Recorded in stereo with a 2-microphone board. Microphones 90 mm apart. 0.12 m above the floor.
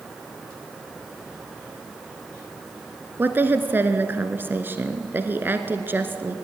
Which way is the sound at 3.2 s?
25° right (ahead or behind).